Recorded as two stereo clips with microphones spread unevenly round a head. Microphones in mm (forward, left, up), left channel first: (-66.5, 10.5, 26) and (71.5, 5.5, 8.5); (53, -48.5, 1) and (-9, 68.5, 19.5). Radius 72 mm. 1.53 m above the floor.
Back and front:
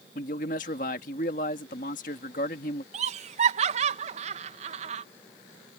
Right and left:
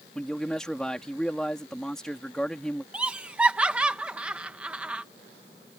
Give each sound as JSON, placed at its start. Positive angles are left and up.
{"t": 0.1, "sound": "a man speaking", "azimuth_deg": -150}
{"t": 2.9, "sound": "laughter", "azimuth_deg": 35}